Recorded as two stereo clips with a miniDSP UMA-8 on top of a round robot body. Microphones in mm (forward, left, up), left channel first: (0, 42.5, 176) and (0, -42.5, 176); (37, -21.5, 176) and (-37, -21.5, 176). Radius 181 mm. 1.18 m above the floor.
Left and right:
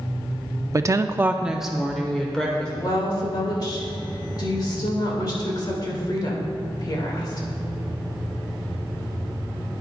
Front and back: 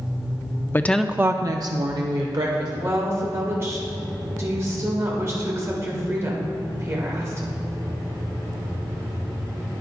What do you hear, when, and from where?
0.7 s a woman speaking: 50° right, 0.6 m; by 2.7 s 170° left, 1.4 m
2.8 s a woman speaking: 130° left, 1.8 m